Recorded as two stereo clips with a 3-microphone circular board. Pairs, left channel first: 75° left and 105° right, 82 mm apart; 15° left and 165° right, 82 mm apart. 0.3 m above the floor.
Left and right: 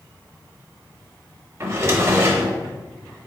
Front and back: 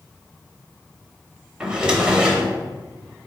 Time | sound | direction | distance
1.6 | a drawer | 95° right | 0.8 m